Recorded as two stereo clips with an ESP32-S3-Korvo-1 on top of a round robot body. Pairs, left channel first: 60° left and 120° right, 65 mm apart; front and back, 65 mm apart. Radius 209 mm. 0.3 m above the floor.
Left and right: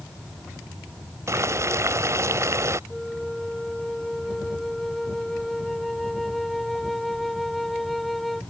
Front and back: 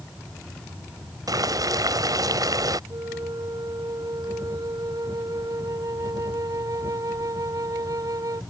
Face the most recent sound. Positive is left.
turn(degrees=145)